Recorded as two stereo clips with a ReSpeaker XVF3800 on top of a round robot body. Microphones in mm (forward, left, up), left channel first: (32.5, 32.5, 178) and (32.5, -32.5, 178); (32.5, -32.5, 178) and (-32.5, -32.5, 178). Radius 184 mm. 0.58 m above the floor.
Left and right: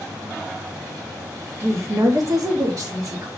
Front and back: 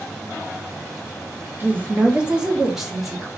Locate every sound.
1.6 s a woman speaking: 125° right, 1.1 m; by 3.3 s 90° right, 1.5 m